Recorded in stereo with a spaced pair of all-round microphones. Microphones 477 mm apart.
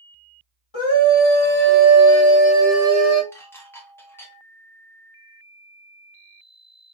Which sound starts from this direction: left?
A scream, at 0.7 s.